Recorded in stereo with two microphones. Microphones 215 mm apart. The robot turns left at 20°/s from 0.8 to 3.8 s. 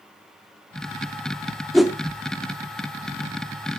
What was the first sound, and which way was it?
A whoosh, centre (ahead or behind).